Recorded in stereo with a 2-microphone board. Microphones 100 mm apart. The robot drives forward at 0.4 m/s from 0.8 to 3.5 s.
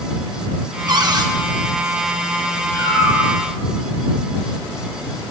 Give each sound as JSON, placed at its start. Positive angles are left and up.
{"t": 0.9, "sound": "a cupboard door", "side_deg": -40, "distance_m": 1.3}
{"t": 2.7, "sound": "a cat meowing", "side_deg": -50, "distance_m": 8.5}